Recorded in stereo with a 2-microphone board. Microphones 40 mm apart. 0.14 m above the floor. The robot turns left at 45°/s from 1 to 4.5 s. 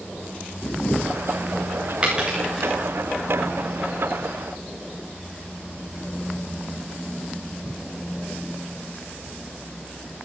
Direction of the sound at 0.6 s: 45° left (ahead or behind).